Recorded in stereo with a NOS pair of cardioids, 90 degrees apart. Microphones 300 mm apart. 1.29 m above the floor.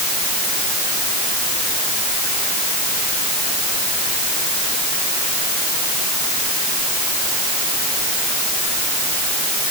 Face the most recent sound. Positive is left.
No sound to turn to.